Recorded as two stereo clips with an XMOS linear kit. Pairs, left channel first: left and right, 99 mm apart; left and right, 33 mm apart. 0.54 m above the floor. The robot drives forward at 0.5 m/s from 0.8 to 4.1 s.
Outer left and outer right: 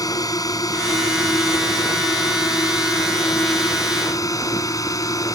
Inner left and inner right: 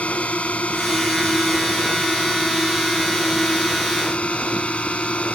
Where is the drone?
40° left (ahead or behind); by 5.3 s 35° left (ahead or behind).